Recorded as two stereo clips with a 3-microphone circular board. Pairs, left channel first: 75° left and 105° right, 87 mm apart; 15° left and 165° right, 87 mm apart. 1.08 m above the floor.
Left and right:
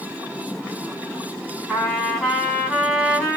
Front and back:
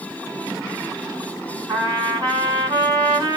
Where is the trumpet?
155° left, 3 m.